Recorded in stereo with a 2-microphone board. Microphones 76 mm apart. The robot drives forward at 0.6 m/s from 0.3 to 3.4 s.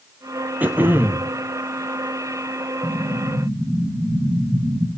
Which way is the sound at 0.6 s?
25° right (ahead or behind).